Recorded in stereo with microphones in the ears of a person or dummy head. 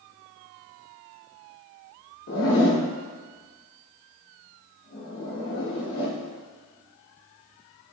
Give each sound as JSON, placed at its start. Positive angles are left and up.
{"t": 2.3, "sound": "a zipper", "side_deg": 55, "distance_m": 1.0}